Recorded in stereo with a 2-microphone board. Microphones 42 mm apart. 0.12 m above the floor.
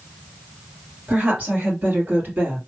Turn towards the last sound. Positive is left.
turn(degrees=-55)  # may be behind; listen again after turning